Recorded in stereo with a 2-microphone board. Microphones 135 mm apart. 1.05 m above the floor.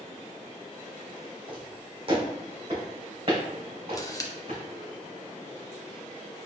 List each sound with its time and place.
1.5 s footsteps: 35° right (ahead or behind), 1.9 m; by 4.6 s 50° right (ahead or behind), 3.5 m
3.9 s a camera shutter: 25° left (ahead or behind), 0.6 m